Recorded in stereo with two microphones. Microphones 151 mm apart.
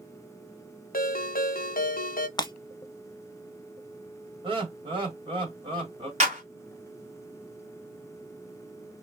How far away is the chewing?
No chewing in this recording.